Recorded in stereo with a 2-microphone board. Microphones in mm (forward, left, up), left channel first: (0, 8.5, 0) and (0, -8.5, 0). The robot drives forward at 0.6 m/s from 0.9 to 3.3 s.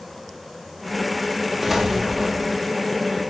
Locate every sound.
1.6 s an explosion: 15° right (ahead or behind), 6 m; by 2.6 s 20° right (ahead or behind), 5.5 m